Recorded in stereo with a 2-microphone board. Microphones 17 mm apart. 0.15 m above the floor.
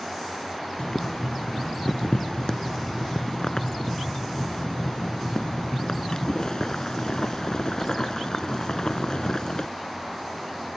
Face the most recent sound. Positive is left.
turn(degrees=45)  # may be behind; listen again after turning